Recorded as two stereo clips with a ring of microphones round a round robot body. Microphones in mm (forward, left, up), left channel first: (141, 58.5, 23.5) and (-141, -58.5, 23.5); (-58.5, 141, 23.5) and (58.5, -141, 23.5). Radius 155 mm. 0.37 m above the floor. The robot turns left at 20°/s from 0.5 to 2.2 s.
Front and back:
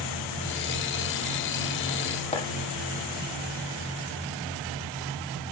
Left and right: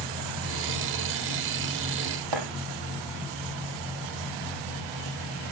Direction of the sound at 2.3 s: 50° right.